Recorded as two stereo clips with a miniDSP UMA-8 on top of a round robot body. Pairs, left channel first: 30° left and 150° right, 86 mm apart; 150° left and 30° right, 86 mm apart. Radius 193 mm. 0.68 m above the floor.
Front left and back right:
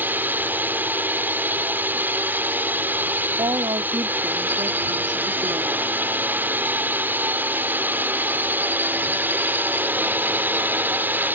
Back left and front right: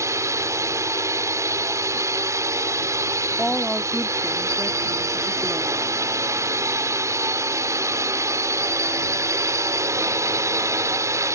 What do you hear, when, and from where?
0.0 s a drone: 85° right
3.4 s a woman speaking: 115° right